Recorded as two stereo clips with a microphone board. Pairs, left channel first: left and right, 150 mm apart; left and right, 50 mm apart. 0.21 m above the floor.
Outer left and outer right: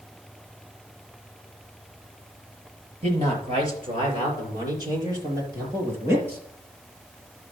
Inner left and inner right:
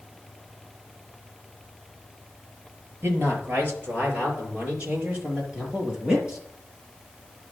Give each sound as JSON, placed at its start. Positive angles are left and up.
{"t": 3.0, "sound": "a man speaking", "side_deg": -45, "distance_m": 5.0}